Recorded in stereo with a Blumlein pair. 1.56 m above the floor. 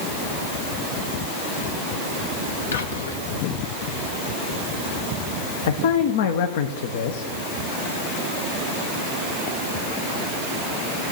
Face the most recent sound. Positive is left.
turn(degrees=55)